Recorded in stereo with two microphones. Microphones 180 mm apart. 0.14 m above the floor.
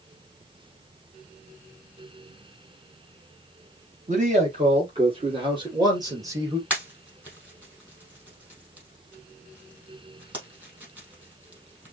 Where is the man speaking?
40° right (ahead or behind), 3.5 m; by 6.6 s 15° right (ahead or behind), 3 m.